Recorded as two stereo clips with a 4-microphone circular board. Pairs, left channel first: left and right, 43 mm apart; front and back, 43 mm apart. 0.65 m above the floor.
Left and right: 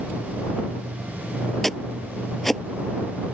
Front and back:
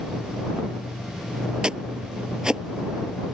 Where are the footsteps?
170° left.